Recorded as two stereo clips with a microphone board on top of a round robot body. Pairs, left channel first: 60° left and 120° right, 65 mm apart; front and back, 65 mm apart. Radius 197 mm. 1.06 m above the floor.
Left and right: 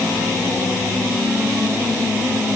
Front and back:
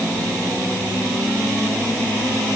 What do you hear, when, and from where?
Only background noise.